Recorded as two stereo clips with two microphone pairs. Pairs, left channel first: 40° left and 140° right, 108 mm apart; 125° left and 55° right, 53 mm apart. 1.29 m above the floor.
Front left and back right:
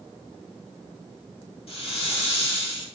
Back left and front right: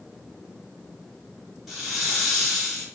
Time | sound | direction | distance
1.7 | a hiss | 30° left | 1.6 m